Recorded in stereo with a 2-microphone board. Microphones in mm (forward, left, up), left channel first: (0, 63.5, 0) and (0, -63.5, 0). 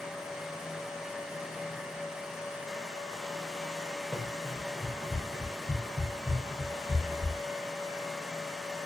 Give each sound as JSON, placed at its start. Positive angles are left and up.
{"t": 4.1, "sound": "running footsteps", "side_deg": 0, "distance_m": 9.0}